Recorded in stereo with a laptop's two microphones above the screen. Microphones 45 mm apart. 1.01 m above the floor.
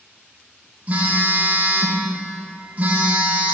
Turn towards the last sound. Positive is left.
turn(degrees=-30)  # may be behind; listen again after turning